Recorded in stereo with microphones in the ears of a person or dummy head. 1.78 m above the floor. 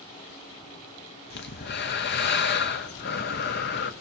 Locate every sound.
1.3 s breathing: 55° left (ahead or behind), 0.8 m